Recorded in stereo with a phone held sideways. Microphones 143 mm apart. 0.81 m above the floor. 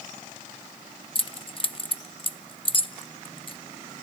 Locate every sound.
1.1 s keys jangling: 40° left (ahead or behind), 0.7 m